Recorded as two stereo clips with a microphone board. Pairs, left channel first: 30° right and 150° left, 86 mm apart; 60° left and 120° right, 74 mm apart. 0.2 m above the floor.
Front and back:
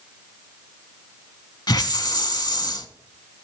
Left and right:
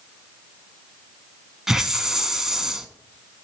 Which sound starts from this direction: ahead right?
A hiss, at 1.7 s.